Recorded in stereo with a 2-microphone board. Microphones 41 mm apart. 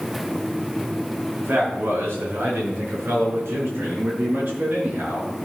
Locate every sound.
1.4 s a man speaking: 75° right (ahead or behind), 4 m; by 5.3 s 55° right (ahead or behind), 5.5 m